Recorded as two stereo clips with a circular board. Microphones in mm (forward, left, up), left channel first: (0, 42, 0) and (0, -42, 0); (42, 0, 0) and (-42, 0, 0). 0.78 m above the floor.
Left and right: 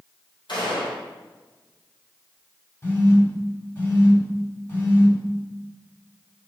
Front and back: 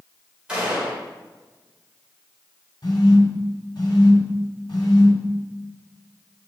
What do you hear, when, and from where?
0.5 s a gunshot: 100° left, 2.5 m
2.8 s a phone buzzing: 35° left, 1.8 m